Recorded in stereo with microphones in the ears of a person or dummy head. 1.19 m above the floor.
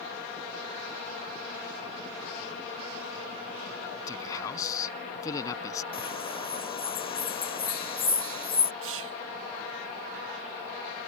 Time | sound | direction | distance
4.1 | a man speaking | 25° left (ahead or behind) | ?
5.9 | a bird | 30° left (ahead or behind) | ?
8.8 | whispering | 70° right (ahead or behind) | ?